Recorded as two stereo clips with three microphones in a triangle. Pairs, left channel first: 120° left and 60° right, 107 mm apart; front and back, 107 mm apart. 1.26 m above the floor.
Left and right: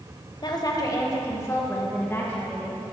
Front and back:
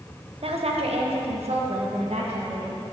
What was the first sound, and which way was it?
A woman speaking, 165° left.